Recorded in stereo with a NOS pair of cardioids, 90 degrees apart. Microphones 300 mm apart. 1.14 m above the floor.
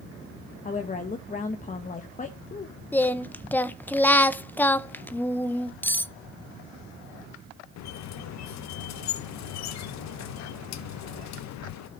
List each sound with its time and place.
0.7 s a woman speaking: 25° left, 1.0 m
2.9 s singing: 5° left, 0.5 m
5.8 s cutlery clinking: 5° left, 0.6 m
7.8 s a squeak: 70° left, 0.7 m